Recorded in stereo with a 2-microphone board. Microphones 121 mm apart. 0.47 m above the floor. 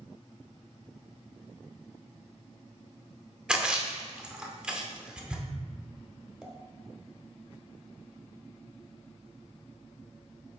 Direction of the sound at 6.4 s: Centre (ahead or behind).